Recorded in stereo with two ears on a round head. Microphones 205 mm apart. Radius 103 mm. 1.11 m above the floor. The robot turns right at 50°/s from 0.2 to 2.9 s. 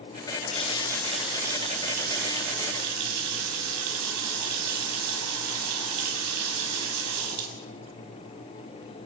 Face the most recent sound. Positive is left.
turn(degrees=-90)